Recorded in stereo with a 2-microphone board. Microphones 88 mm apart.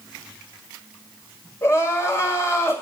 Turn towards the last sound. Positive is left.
turn(degrees=35)  # may be behind; listen again after turning